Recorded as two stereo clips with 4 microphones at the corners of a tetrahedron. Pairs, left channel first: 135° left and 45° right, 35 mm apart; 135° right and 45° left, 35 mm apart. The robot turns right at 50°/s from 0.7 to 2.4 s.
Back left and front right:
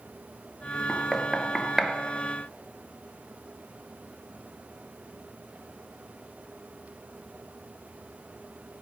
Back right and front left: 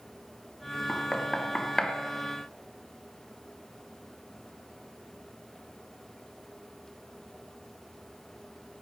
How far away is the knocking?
About 1.4 m.